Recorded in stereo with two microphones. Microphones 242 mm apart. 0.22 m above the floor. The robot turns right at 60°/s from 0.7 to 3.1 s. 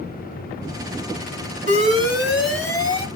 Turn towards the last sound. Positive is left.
turn(degrees=40)